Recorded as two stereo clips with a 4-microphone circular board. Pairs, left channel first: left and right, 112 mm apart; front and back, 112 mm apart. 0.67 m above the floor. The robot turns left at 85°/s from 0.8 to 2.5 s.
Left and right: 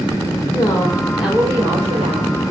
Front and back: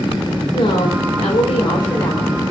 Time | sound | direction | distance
0.5 | a woman speaking | 30° left | 3 m